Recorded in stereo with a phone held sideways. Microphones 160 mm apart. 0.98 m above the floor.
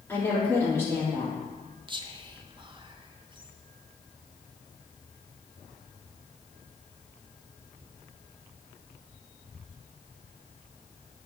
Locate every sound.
0.1 s a woman speaking: 15° left (ahead or behind), 2.5 m
1.9 s whispering: 30° right (ahead or behind), 0.7 m